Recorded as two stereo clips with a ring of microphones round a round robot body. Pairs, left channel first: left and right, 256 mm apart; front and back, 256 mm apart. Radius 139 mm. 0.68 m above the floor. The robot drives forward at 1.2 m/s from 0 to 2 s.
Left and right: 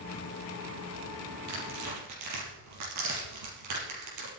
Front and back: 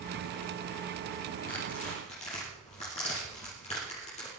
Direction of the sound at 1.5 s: 65° right.